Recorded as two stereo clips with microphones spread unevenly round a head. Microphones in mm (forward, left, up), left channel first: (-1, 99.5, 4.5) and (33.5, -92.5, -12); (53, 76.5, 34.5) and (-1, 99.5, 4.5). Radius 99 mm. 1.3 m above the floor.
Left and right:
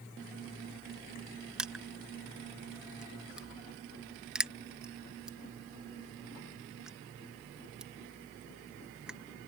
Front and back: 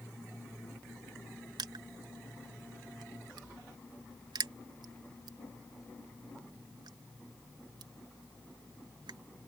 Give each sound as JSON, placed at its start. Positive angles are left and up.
{"t": 1.6, "sound": "crushing", "azimuth_deg": -170}